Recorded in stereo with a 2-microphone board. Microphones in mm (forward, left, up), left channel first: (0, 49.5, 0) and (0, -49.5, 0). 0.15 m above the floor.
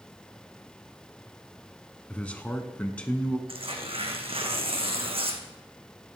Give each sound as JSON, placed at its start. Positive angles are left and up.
{"t": 2.1, "sound": "a man speaking", "side_deg": 15, "distance_m": 1.1}
{"t": 3.5, "sound": "tearing paper", "side_deg": -75, "distance_m": 1.7}